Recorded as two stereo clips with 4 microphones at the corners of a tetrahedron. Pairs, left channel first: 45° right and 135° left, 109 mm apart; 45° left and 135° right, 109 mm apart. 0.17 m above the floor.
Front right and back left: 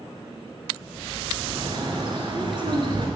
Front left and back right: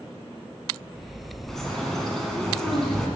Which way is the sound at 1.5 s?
130° left.